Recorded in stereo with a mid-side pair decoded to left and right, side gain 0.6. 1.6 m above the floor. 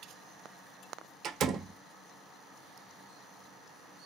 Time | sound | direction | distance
1.2 | a door slam | 55° right | 1.0 m